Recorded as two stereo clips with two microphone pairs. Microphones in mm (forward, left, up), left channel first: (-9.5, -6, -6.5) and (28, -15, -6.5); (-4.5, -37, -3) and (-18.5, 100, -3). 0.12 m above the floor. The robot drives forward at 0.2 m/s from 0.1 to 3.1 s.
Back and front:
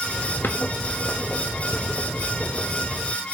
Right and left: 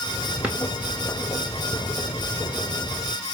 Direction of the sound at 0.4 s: 170° left.